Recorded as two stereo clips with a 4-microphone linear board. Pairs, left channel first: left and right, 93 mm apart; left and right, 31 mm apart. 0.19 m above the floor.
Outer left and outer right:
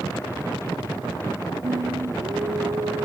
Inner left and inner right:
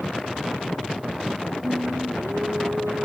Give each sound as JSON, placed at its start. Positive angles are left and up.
{"t": 1.6, "sound": "singing", "side_deg": -70}